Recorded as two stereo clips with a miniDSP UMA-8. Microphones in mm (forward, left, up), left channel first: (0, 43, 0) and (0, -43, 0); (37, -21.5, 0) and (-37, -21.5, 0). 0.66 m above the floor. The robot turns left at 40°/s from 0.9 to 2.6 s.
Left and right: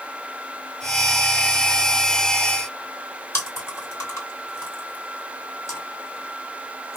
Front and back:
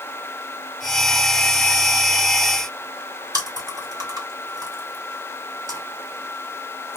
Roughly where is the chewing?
Behind left.